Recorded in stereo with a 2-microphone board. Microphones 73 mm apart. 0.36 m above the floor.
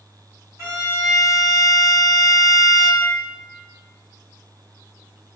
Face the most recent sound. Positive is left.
turn(degrees=-45)  # may be behind; listen again after turning